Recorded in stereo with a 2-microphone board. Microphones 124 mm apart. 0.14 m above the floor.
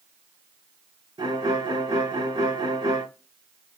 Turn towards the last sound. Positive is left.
turn(degrees=-40)  # may be behind; listen again after turning